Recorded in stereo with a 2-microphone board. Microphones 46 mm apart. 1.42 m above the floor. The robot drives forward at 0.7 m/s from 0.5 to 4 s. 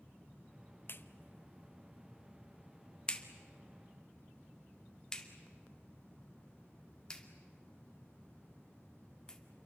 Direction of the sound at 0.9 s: 50° left (ahead or behind).